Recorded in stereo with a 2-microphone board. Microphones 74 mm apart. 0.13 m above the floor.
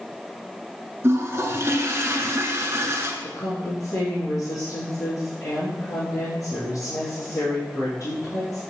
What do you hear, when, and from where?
1.0 s a toilet flushing: 35° right (ahead or behind), 1.1 m
3.2 s a woman speaking: 55° left (ahead or behind), 3.5 m